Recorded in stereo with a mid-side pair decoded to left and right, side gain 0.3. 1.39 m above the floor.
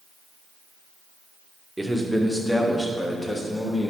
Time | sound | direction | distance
1.8 | a man speaking | 10° right | 1.4 m